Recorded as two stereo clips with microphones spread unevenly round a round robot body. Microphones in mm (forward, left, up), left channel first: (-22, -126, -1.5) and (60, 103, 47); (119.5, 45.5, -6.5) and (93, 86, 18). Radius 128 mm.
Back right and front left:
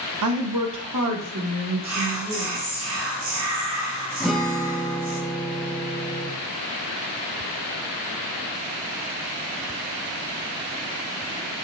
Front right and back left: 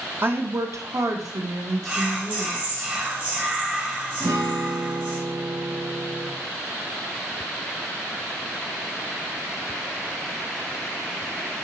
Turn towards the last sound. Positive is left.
turn(degrees=170)